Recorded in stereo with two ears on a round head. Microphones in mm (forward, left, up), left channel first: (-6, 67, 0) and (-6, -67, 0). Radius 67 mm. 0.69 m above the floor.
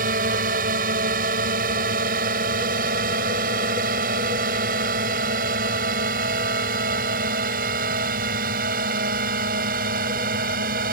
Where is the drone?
65° right (ahead or behind).